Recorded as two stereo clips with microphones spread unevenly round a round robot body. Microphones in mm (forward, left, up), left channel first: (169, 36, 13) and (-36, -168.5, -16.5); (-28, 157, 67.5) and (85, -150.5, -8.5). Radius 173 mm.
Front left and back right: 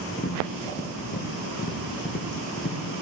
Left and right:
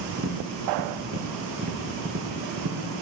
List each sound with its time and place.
0.2 s tapping: 10° right, 3.5 m